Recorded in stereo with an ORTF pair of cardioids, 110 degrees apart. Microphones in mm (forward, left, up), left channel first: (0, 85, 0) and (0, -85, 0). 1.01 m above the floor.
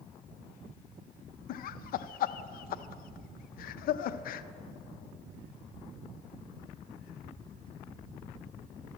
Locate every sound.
1.5 s laughter: 65° left, 0.5 m